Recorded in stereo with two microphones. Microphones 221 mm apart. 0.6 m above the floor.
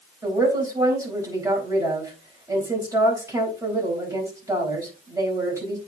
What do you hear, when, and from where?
0.2 s a woman speaking: 15° right (ahead or behind), 4 m